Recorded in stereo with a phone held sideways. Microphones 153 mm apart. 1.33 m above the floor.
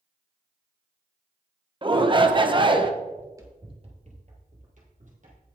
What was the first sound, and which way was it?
A shout, 35° right (ahead or behind).